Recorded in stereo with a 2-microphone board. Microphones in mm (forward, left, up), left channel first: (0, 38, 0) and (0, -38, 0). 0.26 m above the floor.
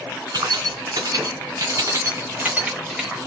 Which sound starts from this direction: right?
Keys jangling, at 0.3 s.